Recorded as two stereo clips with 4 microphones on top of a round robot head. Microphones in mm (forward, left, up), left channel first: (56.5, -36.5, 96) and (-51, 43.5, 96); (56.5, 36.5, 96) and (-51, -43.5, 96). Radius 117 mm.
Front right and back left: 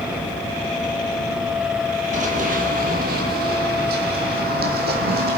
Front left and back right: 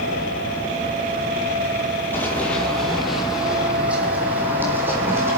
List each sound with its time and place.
2.1 s running footsteps: 110° left, 1.3 m; by 5.4 s 145° left, 2.5 m